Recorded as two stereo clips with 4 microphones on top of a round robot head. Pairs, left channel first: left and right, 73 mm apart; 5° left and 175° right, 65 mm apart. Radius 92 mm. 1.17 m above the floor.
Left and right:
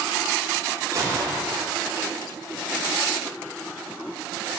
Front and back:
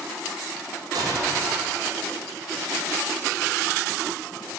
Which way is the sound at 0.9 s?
145° right.